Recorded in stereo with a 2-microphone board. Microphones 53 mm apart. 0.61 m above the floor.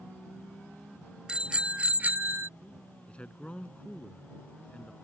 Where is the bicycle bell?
15° right (ahead or behind); by 2.5 s 55° right (ahead or behind).